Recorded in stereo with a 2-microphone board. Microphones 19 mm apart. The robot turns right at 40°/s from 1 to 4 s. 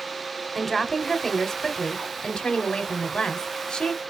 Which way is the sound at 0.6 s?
5° left.